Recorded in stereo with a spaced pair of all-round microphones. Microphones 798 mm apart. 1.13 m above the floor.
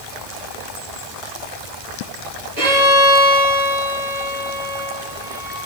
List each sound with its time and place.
2.6 s a violin: 45° right (ahead or behind), 5.5 m